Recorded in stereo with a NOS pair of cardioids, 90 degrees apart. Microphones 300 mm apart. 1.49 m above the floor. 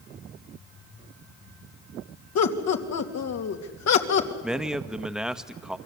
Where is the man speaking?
Straight ahead, 1.5 m.